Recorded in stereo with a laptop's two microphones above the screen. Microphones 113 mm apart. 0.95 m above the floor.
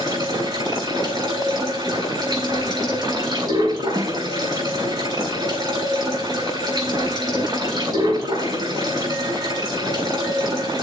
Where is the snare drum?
35° right (ahead or behind), 1.1 m.